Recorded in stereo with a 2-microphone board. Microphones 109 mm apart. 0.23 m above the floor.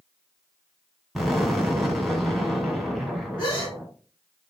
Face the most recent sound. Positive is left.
turn(degrees=50)  # may be behind; listen again after turning